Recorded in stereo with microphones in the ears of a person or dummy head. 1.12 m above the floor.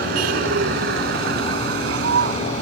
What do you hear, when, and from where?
0.0 s a vehicle: 60° right (ahead or behind); by 2.6 s 65° right (ahead or behind)